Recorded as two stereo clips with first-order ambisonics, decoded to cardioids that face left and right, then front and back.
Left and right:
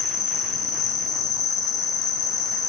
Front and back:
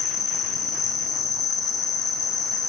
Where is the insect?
55° left, 1.1 m.